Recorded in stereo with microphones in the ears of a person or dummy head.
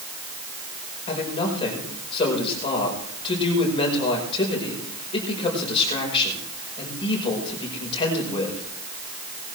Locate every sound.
1.1 s a man speaking: 30° left (ahead or behind), 5 m